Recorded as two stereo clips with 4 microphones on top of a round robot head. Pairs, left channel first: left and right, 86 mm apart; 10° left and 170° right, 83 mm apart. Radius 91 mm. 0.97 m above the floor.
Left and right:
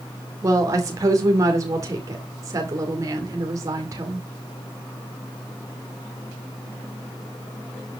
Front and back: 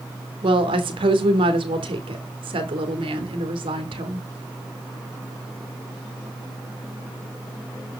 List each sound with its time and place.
0.4 s a woman speaking: 145° right, 2.5 m